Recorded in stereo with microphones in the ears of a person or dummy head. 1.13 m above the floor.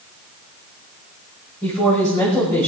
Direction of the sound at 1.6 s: 15° left (ahead or behind).